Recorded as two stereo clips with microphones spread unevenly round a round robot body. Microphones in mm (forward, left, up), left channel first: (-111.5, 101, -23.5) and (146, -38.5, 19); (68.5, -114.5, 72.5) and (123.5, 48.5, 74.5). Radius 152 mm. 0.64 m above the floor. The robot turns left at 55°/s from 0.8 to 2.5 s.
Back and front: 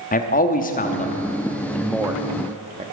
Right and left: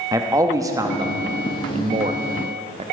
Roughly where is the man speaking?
Behind left.